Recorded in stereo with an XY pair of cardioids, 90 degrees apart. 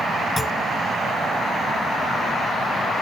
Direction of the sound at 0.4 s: 25° left.